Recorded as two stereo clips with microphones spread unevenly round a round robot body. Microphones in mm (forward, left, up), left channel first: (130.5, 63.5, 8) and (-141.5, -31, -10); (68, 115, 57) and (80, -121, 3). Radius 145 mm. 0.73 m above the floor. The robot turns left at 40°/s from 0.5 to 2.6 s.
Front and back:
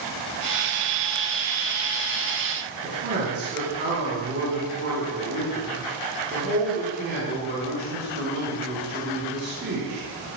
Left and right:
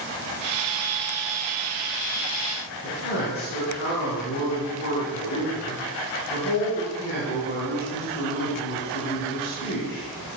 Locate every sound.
2.8 s a man speaking: 145° left, 5.5 m